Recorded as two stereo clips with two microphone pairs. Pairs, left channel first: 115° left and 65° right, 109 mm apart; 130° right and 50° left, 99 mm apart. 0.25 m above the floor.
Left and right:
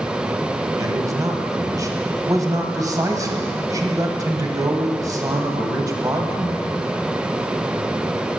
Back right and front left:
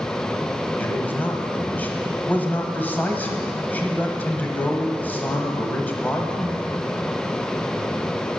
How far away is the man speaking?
About 1.2 m.